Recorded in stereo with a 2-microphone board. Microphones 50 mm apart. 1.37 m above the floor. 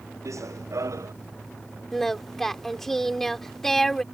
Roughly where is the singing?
Centre.